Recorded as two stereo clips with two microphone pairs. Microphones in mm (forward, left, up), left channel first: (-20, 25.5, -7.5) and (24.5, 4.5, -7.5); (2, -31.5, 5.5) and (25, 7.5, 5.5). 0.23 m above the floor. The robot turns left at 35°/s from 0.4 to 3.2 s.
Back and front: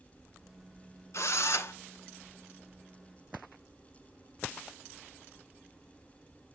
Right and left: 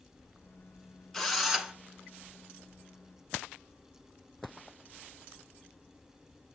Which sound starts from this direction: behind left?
A drill, at 1.1 s.